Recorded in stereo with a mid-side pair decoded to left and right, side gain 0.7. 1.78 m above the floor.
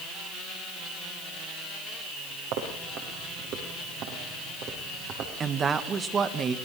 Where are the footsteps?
60° right, 6.5 m; by 5.3 s 50° right, 5.5 m.